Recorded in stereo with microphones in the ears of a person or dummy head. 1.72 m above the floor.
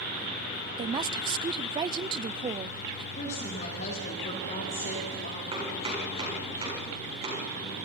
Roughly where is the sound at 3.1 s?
Left.